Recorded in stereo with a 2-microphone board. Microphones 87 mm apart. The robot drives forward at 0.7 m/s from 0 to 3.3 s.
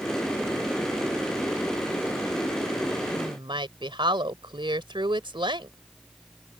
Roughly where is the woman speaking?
Right.